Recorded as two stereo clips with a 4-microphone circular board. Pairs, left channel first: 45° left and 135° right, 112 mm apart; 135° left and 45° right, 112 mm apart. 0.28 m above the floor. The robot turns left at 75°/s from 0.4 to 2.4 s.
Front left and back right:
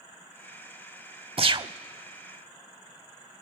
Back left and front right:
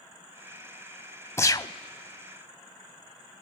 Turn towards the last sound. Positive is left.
turn(degrees=125)